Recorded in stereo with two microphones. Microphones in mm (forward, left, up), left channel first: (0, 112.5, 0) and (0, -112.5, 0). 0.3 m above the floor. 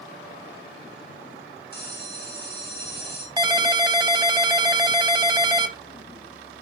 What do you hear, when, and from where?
1.7 s a bell: 45° left (ahead or behind), 2.5 m
3.4 s a ringtone: 20° right (ahead or behind), 0.6 m